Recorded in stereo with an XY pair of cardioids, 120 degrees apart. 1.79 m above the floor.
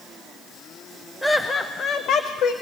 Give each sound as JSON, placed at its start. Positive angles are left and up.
{"t": 1.2, "sound": "laughter", "azimuth_deg": 5, "distance_m": 0.9}